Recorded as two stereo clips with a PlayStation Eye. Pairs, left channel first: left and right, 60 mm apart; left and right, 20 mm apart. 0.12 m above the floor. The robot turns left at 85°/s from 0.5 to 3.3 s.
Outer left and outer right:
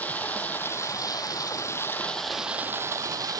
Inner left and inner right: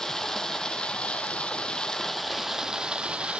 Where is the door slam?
No door slam in this recording.